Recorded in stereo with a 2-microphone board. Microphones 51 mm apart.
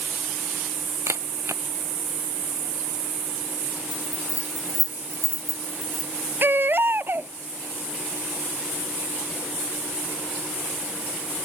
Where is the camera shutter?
70° right (ahead or behind).